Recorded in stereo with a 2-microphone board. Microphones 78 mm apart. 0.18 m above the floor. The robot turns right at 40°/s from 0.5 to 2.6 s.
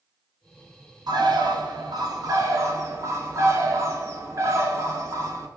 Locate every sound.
1.1 s a bird: 105° right, 0.8 m; by 5.5 s 45° right, 0.8 m